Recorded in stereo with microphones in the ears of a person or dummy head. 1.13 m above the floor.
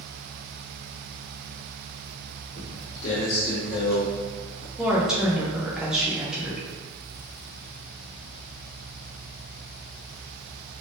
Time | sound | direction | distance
2.6 | footsteps | 40° left (ahead or behind) | 1.4 m
4.8 | a woman speaking | centre (ahead or behind) | 0.8 m